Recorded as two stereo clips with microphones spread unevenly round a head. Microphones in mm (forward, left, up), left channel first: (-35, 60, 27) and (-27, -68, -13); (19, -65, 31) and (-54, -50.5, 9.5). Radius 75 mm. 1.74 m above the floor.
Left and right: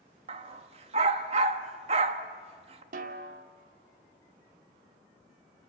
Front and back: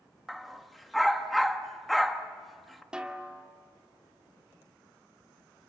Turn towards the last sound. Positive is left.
turn(degrees=-105)